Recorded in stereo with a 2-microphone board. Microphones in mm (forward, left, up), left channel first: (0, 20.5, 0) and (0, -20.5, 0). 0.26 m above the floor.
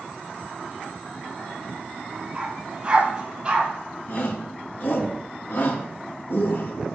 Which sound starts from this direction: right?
A dog barking, at 2.4 s.